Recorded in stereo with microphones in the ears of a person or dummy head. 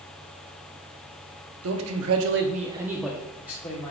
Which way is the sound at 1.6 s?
80° right.